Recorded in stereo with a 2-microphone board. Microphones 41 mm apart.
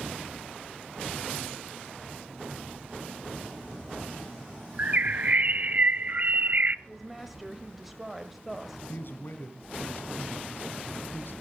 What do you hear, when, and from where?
4.8 s a bird: 45° right (ahead or behind), 0.6 m
6.9 s a woman speaking: 5° right (ahead or behind), 1.4 m
8.9 s a man speaking: 65° left (ahead or behind), 2.5 m